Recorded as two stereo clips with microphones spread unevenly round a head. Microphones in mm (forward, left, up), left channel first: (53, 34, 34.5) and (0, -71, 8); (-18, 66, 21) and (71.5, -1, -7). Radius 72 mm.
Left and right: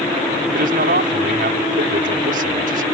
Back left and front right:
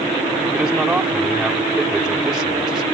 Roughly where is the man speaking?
Behind right.